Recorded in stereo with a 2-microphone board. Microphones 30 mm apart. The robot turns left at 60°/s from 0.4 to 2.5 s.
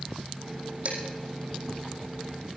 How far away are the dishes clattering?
About 4.5 m.